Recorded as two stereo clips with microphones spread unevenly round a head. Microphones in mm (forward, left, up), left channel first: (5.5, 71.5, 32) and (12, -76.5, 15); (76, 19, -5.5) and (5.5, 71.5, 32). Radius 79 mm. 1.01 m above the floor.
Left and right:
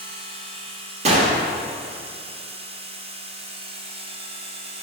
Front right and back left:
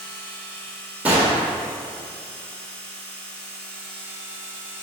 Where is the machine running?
85° right, 1.0 m.